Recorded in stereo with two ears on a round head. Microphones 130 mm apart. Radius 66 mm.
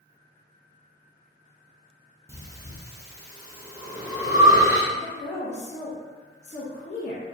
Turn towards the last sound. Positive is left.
turn(degrees=50)  # may be behind; listen again after turning